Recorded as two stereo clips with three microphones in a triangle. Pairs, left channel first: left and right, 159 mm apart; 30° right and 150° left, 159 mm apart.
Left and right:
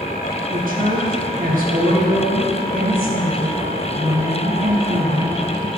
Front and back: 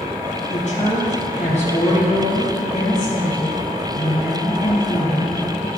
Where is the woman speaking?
70° right, 4.5 m.